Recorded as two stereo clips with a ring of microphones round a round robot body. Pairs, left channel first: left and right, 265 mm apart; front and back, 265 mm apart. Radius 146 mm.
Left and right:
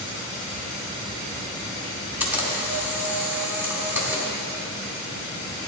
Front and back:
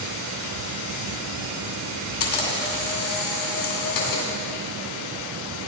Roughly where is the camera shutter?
Ahead.